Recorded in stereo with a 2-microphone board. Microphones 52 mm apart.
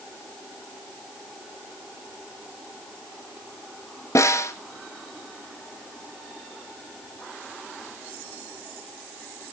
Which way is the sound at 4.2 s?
80° left.